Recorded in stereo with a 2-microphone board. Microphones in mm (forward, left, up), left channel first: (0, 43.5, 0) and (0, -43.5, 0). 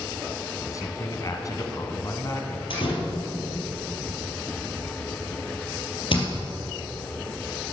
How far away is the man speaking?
About 1.3 m.